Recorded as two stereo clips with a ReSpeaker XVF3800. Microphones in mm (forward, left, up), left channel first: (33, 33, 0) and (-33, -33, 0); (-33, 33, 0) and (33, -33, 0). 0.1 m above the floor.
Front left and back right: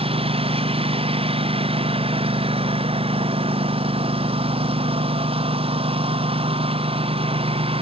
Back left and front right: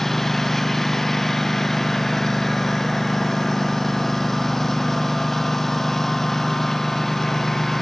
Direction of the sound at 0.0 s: 140° right.